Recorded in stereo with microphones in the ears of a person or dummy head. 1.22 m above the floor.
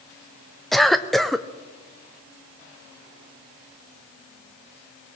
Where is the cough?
5° left (ahead or behind), 0.6 m.